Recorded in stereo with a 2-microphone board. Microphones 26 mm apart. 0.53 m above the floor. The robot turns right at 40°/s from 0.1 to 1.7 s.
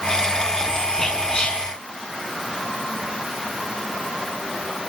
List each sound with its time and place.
1.0 s whispering: 20° left (ahead or behind), 5.5 m; by 1.6 s 40° left (ahead or behind), 5.5 m